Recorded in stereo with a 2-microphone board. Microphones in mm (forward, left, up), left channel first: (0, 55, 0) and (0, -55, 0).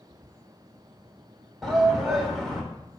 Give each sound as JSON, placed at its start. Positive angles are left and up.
{"t": 1.6, "sound": "a shout", "side_deg": 0, "distance_m": 1.4}